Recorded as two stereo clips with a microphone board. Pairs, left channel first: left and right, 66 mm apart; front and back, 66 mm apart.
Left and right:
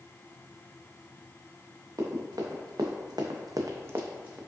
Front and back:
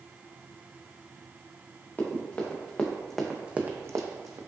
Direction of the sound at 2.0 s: 55° right.